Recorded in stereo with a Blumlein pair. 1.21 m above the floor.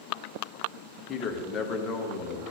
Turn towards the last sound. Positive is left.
turn(degrees=25)